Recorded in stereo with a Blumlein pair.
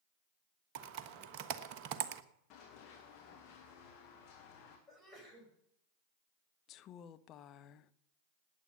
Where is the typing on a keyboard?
40° right, 1.2 m.